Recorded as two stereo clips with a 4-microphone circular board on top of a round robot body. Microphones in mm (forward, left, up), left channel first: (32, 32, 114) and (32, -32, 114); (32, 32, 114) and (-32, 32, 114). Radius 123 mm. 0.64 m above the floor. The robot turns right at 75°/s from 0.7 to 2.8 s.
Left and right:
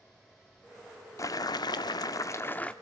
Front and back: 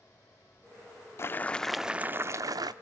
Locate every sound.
1.2 s boiling: 50° left, 0.6 m; by 2.7 s 165° left, 0.6 m